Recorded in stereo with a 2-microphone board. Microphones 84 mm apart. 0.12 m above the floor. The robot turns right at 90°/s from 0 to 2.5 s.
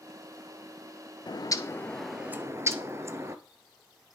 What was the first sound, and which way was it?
A bird, 105° left.